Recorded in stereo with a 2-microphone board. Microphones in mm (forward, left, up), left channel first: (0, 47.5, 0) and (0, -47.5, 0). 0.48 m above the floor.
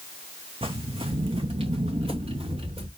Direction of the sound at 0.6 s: 70° right (ahead or behind).